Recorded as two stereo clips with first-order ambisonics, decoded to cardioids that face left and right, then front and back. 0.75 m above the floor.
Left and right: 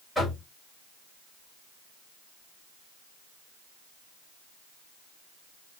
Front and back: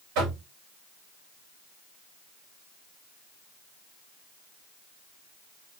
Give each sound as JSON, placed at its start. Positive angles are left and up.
{"t": 0.1, "sound": "knocking", "azimuth_deg": 175, "distance_m": 2.0}